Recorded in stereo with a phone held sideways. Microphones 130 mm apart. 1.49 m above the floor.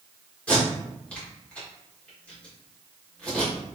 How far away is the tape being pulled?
About 1.5 m.